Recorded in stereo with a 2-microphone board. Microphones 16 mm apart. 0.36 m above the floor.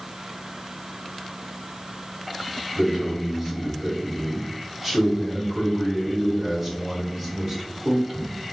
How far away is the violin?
No violin in this recording.